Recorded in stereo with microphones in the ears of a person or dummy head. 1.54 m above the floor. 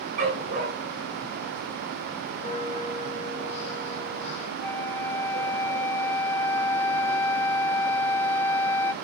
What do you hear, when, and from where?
0.2 s a dog barking: 40° right (ahead or behind), 5.5 m
2.4 s a bell: 45° left (ahead or behind), 4 m
4.6 s a flute: 15° left (ahead or behind), 0.5 m